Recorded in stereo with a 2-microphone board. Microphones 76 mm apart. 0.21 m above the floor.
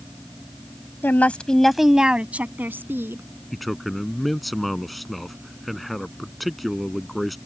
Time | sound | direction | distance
1.0 | a woman speaking | 25° left (ahead or behind) | ?
3.5 | a man speaking | centre (ahead or behind) | ?